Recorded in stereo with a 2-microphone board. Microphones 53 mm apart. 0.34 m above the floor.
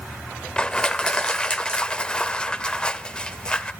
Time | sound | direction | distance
0.6 | crushing | 15° left (ahead or behind) | 0.5 m